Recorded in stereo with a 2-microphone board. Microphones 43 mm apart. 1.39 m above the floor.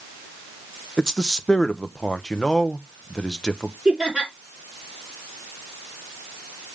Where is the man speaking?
15° left (ahead or behind), 0.9 m.